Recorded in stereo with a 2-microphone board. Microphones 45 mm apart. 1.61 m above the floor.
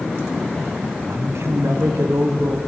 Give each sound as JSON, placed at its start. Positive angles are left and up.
{"t": 1.0, "sound": "a man speaking", "side_deg": -65, "distance_m": 1.2}